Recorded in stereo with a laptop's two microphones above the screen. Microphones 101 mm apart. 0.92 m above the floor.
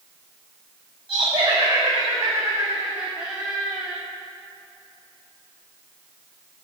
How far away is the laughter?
About 1.8 m.